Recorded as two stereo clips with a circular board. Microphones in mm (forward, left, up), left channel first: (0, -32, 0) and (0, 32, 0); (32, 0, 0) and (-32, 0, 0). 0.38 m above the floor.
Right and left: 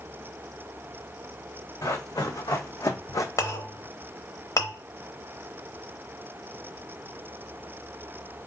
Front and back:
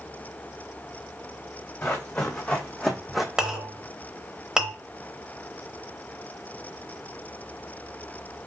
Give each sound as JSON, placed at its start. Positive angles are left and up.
{"t": 1.8, "sound": "running footsteps", "azimuth_deg": -70, "distance_m": 1.3}
{"t": 3.4, "sound": "a clink", "azimuth_deg": -105, "distance_m": 0.8}